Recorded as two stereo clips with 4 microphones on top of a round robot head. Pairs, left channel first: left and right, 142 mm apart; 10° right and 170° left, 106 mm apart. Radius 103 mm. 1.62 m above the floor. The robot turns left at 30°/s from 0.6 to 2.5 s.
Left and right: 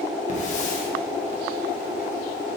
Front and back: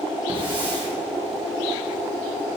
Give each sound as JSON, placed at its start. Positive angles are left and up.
{"t": 0.3, "sound": "a hiss", "azimuth_deg": 125, "distance_m": 3.0}